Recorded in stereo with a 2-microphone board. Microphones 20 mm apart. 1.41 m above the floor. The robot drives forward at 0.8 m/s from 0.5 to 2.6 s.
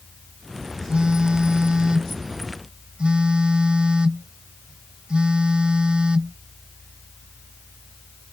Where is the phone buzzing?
50° right (ahead or behind); by 6.4 s 55° right (ahead or behind).